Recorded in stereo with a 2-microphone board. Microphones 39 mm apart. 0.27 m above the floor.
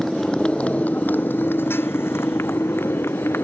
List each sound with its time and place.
0.0 s a motorcycle: 5° left (ahead or behind); by 3.4 s 85° left